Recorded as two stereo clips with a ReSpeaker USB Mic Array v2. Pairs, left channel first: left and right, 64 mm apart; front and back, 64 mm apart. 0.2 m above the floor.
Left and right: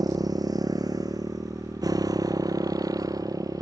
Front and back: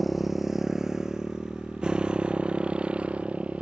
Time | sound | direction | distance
0.0 | a motorcycle | 90° right | ?